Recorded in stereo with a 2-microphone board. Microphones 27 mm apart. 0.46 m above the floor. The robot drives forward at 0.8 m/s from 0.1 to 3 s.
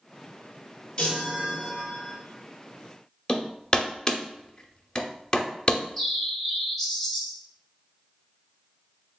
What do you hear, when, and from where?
1.0 s a chime: 30° left (ahead or behind), 2.5 m; by 2.2 s 20° left (ahead or behind), 3.5 m
3.3 s hammering: 25° left (ahead or behind), 0.6 m
5.7 s a bird: 10° left (ahead or behind), 0.9 m